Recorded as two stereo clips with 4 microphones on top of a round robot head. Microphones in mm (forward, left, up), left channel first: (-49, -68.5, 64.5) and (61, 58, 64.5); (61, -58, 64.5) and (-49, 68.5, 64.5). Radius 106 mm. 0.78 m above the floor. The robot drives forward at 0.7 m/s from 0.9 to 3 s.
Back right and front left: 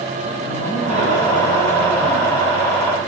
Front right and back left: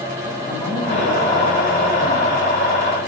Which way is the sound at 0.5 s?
100° right.